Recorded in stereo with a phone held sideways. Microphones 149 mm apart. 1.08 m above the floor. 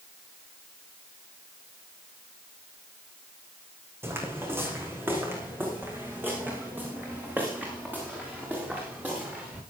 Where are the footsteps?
15° right (ahead or behind), 4 m; by 9.6 s 10° right (ahead or behind), 7.5 m.